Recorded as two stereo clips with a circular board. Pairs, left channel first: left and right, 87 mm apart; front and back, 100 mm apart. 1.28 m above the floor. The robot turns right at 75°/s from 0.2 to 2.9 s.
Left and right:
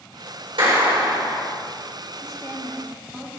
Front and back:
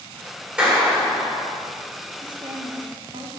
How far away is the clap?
About 3 m.